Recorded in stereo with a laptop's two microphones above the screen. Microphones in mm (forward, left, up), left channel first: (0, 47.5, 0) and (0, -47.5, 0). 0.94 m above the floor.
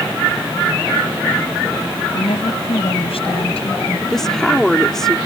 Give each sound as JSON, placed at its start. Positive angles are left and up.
{"t": 2.1, "sound": "a woman speaking", "side_deg": 80}
{"t": 4.1, "sound": "a woman speaking", "side_deg": 5}